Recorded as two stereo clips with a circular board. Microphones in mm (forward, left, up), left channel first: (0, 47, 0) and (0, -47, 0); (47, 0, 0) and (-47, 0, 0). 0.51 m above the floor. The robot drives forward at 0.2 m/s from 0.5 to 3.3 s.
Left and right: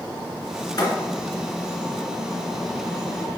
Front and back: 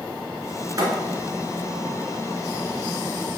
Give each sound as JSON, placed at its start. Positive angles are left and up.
{"t": 0.8, "sound": "a thud", "azimuth_deg": 130, "distance_m": 2.5}